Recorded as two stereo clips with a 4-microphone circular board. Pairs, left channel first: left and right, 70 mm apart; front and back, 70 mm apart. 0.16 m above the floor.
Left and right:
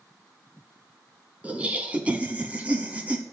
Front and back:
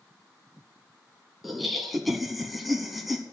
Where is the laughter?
95° right, 1.3 m.